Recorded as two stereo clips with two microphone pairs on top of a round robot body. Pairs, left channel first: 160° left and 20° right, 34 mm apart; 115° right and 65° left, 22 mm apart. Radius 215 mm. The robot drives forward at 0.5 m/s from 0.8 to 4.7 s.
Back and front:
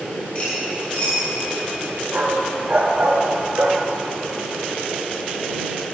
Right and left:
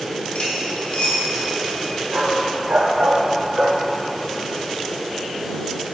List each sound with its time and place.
0.3 s cutlery clinking: 150° right, 5.5 m
2.1 s a dog barking: 35° left, 1.5 m; by 3.8 s 70° left, 1.0 m